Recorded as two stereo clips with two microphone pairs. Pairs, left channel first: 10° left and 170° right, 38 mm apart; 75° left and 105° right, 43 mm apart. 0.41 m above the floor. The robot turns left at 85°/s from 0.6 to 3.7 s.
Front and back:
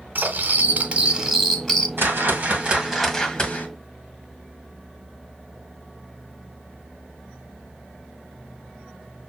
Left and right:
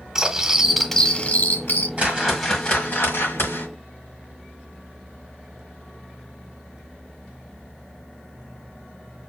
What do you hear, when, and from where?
0.1 s cutlery clinking: 175° left, 0.9 m; by 1.9 s 70° left, 0.9 m
2.0 s a whoosh: 160° right, 1.6 m; by 3.7 s 55° left, 1.6 m